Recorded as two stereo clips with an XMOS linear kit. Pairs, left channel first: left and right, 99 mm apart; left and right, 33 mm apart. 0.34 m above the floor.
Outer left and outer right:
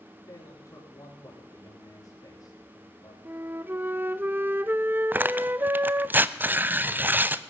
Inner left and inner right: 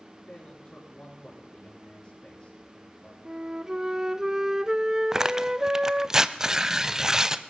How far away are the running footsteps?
I don't hear running footsteps.